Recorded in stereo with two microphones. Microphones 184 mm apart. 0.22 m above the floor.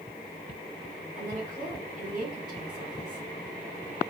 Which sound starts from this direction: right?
A woman speaking, at 1.2 s.